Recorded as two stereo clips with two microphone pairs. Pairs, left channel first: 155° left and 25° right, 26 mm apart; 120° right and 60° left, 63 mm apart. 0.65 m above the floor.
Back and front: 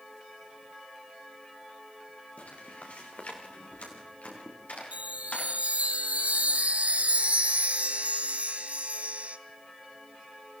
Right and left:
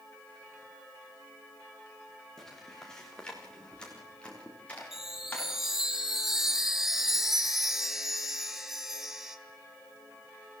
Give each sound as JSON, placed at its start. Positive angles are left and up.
{"t": 2.4, "sound": "footsteps", "azimuth_deg": 160, "distance_m": 5.0}
{"t": 4.9, "sound": "a chime", "azimuth_deg": -20, "distance_m": 1.9}